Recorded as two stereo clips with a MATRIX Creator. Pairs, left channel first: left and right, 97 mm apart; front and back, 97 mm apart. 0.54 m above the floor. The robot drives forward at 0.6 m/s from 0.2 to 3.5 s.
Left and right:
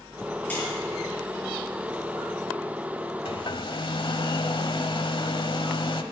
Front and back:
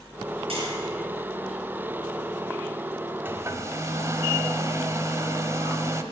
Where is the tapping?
165° left, 7 m.